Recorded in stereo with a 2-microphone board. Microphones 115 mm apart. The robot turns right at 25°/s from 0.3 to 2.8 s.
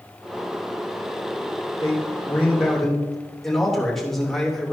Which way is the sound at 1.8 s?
30° left (ahead or behind).